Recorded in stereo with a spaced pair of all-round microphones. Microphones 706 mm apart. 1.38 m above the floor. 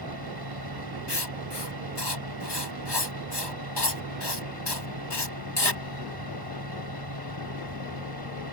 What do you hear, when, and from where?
0.0 s a fan: 30° right (ahead or behind)
1.1 s writing: 35° left (ahead or behind)